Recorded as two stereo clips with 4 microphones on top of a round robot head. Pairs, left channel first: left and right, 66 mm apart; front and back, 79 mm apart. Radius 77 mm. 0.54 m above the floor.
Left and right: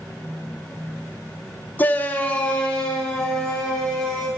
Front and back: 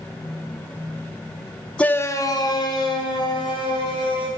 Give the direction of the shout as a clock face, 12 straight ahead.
10 o'clock.